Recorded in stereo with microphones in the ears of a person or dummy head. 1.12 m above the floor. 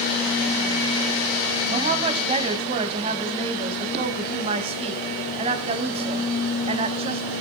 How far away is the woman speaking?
About 0.8 m.